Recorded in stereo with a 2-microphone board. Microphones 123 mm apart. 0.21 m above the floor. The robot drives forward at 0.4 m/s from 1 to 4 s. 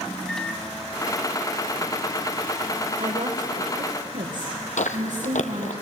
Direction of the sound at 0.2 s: 5° left (ahead or behind).